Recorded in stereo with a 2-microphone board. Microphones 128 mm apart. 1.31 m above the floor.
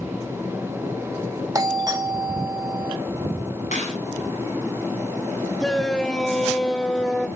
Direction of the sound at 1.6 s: 30° right (ahead or behind).